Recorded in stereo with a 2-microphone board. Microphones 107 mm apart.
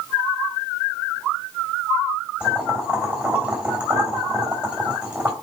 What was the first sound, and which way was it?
Boiling, 10° right (ahead or behind).